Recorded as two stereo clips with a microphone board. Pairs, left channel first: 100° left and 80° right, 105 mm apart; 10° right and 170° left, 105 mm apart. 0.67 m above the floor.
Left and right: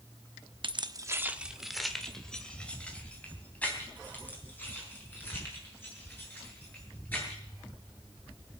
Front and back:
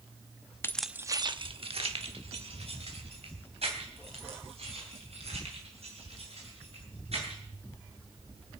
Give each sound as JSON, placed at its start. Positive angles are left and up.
{"t": 0.6, "sound": "keys jangling", "azimuth_deg": -75, "distance_m": 0.6}